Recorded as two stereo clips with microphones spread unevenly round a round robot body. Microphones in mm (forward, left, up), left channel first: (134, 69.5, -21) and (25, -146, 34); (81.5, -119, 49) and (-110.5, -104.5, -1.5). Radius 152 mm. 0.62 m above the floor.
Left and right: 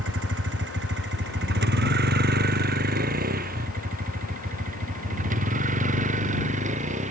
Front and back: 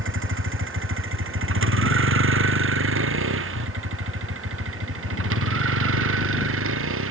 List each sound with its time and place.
0.0 s a vehicle: 170° right; by 7.1 s 175° left